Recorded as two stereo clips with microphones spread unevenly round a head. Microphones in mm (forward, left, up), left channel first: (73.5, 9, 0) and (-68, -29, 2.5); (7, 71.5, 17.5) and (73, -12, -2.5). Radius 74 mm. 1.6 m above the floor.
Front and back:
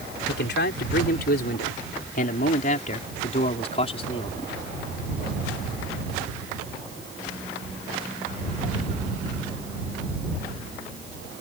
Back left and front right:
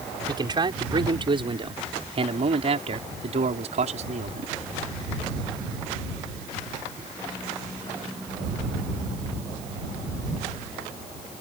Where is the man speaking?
Straight ahead; by 4.5 s 45° right.